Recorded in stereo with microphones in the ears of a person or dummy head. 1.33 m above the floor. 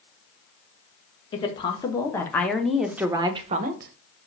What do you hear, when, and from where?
1.3 s a woman speaking: 25° left (ahead or behind), 1.4 m; by 3.9 s 55° right (ahead or behind), 0.7 m